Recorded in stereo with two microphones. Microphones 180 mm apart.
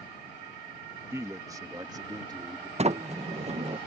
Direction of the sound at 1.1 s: 15° right (ahead or behind).